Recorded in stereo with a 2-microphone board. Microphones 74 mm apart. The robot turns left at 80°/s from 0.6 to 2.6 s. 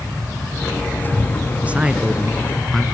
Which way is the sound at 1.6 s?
20° right (ahead or behind).